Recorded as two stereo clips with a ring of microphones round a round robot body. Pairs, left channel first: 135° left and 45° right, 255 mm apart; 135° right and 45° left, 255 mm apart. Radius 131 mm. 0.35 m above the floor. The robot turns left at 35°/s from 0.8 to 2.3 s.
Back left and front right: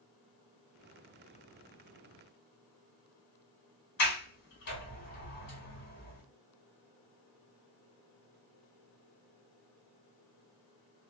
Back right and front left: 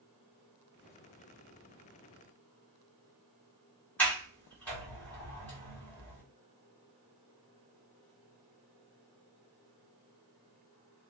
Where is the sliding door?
145° left, 1.7 m.